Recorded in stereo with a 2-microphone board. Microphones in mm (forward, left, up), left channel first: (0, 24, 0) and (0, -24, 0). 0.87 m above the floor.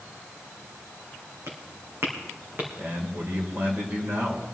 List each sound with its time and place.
1.5 s footsteps: 60° right (ahead or behind), 3 m; by 2.7 s 45° right (ahead or behind), 3.5 m
2.8 s a man speaking: 45° right (ahead or behind), 2.5 m